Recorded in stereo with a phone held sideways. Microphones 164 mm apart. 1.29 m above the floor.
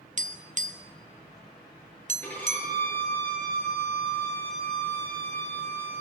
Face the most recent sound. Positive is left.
turn(degrees=10)  # may be behind; listen again after turning